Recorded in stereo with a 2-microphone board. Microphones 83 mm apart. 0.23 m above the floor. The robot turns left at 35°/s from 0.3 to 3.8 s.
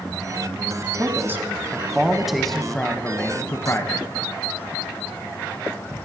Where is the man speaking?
130° right, 1.4 m; by 4.1 s 130° left, 1.4 m.